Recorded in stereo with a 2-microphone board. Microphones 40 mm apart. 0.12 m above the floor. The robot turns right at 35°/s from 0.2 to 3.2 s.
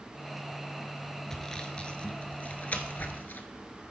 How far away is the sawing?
About 0.7 m.